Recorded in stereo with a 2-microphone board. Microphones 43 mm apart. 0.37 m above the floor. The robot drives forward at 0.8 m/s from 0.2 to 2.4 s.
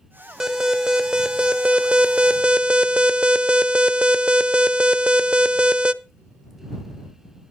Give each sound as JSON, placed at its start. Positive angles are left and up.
{"t": 0.4, "sound": "an alarm", "side_deg": -15, "distance_m": 1.7}